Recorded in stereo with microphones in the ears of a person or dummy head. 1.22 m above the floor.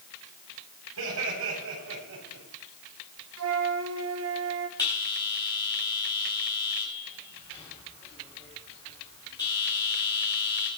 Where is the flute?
75° right (ahead or behind), 1.4 m.